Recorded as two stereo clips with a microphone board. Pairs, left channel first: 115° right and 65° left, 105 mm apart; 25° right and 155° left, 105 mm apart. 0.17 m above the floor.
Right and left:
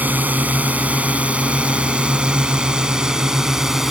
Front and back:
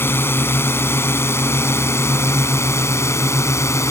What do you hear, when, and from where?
0.0 s a drone: 15° left; by 3.9 s 15° right